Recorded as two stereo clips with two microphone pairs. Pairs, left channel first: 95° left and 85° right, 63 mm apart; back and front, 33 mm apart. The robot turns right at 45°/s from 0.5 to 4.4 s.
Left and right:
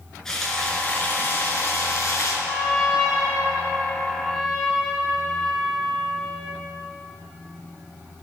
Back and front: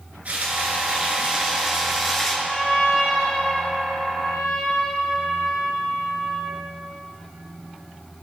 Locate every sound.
0.2 s frying: 15° left, 3 m; by 2.4 s 100° left, 3 m
2.5 s a trumpet: 80° left, 4.5 m; by 6.6 s 170° left, 4.5 m